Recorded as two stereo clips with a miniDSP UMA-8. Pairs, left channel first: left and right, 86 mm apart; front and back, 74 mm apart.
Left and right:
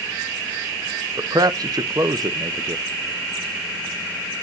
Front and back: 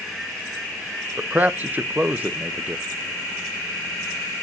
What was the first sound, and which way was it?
A man speaking, 115° right.